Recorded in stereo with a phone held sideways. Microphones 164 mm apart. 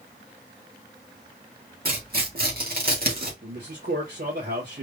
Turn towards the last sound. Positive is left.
turn(degrees=-70)  # may be behind; listen again after turning